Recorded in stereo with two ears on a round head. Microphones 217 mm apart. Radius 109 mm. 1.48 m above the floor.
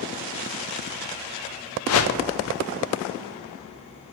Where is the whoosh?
60° left (ahead or behind), 0.6 m.